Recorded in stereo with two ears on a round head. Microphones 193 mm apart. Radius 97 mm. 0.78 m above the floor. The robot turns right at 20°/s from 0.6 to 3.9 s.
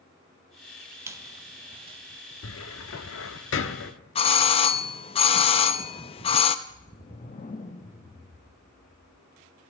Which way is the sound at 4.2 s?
30° left (ahead or behind).